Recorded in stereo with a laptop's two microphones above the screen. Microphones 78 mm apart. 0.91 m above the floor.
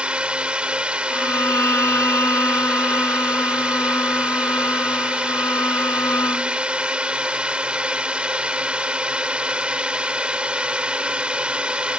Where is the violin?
35° left (ahead or behind).